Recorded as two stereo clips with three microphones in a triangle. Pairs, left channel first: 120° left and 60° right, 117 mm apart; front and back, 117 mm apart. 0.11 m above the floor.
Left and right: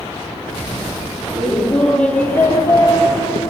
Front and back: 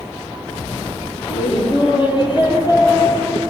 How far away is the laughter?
About 4 m.